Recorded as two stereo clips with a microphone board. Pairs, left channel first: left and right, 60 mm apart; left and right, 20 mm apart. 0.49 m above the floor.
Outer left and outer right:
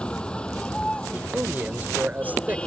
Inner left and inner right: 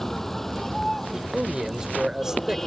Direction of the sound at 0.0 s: 15° left (ahead or behind).